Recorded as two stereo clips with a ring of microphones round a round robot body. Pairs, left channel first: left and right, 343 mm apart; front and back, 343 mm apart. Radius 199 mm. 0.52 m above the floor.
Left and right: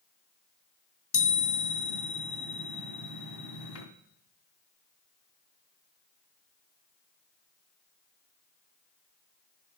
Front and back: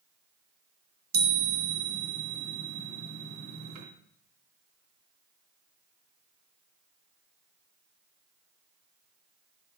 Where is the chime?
115° left, 2.5 m.